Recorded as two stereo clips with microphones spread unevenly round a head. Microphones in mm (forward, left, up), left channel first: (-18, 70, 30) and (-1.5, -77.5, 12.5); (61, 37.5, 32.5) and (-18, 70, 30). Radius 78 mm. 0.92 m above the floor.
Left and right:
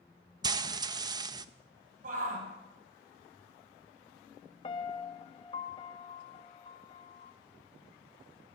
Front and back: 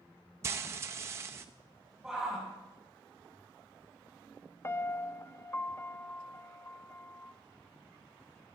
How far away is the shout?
About 6.5 m.